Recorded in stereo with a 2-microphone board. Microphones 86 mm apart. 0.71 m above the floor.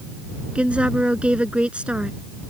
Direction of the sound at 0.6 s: 15° right (ahead or behind).